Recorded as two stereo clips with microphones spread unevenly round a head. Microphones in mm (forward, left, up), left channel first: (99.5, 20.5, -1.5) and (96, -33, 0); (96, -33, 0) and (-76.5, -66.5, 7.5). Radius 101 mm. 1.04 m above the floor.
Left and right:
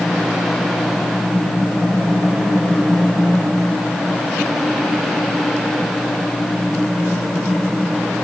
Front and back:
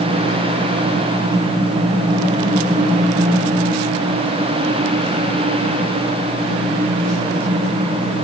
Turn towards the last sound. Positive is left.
No sound to turn to.